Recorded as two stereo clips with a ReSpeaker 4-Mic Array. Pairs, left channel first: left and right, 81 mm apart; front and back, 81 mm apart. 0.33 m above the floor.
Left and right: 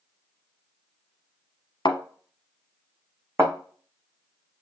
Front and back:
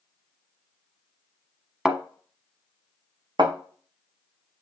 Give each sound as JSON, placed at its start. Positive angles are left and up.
{"t": 1.9, "sound": "a thud", "azimuth_deg": 95, "distance_m": 1.0}
{"t": 3.4, "sound": "a thud", "azimuth_deg": -150, "distance_m": 2.5}